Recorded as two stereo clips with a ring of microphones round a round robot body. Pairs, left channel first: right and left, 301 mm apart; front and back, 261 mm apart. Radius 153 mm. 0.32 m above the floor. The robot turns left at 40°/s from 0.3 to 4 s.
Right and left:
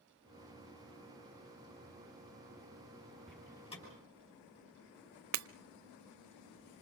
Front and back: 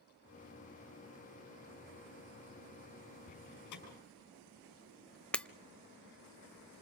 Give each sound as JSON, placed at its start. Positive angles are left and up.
{"t": 3.3, "sound": "a door slam", "azimuth_deg": 0, "distance_m": 6.0}
{"t": 5.3, "sound": "breaking glass", "azimuth_deg": 85, "distance_m": 0.6}